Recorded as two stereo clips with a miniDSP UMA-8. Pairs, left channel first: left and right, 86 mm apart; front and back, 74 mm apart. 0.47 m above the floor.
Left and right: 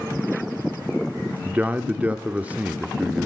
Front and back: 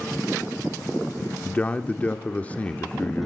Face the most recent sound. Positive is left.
turn(degrees=-45)